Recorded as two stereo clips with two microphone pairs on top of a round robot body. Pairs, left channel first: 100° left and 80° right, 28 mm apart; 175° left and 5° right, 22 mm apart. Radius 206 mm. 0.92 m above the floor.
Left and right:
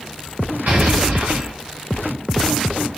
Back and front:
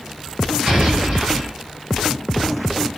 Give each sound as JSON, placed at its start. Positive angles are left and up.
{"t": 0.7, "sound": "an explosion", "azimuth_deg": -45, "distance_m": 0.6}